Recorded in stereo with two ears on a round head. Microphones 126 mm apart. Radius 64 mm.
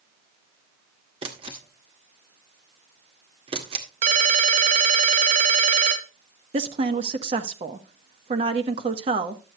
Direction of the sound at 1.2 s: 40° right (ahead or behind).